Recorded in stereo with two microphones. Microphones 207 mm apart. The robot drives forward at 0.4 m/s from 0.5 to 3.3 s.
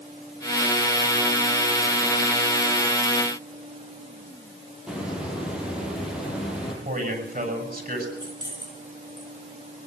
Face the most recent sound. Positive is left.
turn(degrees=-20)  # may be behind; listen again after turning